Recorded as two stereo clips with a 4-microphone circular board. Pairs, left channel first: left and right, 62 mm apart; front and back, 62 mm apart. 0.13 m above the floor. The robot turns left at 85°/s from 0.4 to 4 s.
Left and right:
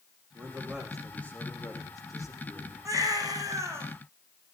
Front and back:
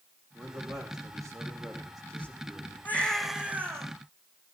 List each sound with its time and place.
0.3 s a man speaking: 135° right, 7 m; by 2.8 s 25° left, 7 m
2.9 s a baby crying: 55° right, 5 m; by 3.9 s 145° right, 5 m